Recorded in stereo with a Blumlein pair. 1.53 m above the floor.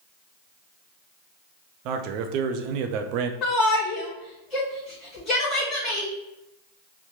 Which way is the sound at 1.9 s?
40° right.